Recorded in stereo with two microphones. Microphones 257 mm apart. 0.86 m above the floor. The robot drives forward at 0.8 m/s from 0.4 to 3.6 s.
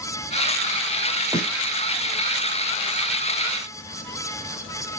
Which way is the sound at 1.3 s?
10° right (ahead or behind).